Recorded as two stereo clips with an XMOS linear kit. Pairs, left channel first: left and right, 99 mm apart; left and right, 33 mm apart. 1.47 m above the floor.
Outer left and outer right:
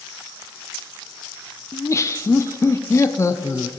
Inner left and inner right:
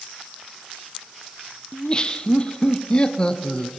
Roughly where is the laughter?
Left.